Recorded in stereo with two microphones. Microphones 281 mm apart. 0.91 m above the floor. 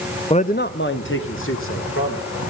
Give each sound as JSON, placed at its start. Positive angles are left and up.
{"t": 0.3, "sound": "a man speaking", "side_deg": 20, "distance_m": 0.6}